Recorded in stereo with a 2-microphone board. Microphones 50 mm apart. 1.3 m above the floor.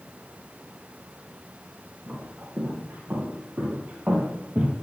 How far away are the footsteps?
About 2.5 m.